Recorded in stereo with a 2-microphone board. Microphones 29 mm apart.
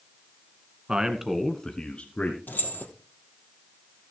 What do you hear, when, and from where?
0.9 s a man speaking: 30° right (ahead or behind), 1.5 m; by 2.4 s 50° left (ahead or behind), 1.9 m
2.5 s keys jangling: 70° left (ahead or behind), 2.5 m